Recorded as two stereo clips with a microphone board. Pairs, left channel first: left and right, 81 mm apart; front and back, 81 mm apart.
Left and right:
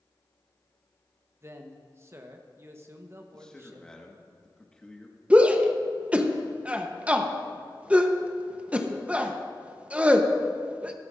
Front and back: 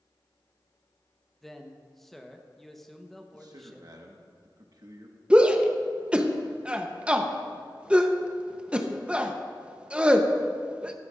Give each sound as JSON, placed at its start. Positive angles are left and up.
{"t": 1.4, "sound": "a man speaking", "azimuth_deg": -85, "distance_m": 0.9}
{"t": 3.3, "sound": "a man speaking", "azimuth_deg": 170, "distance_m": 1.3}
{"t": 5.3, "sound": "a shout", "azimuth_deg": -130, "distance_m": 0.8}